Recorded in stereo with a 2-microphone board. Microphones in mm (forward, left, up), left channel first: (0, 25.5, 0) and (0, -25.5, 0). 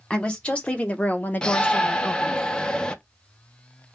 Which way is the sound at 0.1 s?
20° left (ahead or behind).